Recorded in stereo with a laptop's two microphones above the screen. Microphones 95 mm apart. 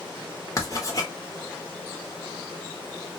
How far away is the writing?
About 1.0 m.